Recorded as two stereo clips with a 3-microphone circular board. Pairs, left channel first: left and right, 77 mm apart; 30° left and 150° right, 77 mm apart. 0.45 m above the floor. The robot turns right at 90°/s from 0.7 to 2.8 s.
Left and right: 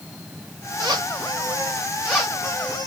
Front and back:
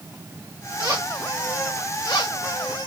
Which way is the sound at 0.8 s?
125° right.